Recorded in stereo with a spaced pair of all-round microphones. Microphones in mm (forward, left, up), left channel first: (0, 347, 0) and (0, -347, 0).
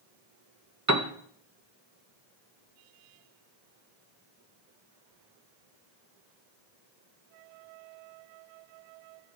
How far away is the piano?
About 1.7 m.